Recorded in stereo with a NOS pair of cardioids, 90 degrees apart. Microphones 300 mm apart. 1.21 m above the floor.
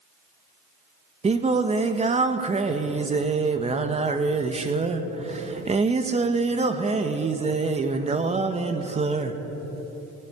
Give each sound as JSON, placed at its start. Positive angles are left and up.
{"t": 1.2, "sound": "singing", "azimuth_deg": -20, "distance_m": 1.3}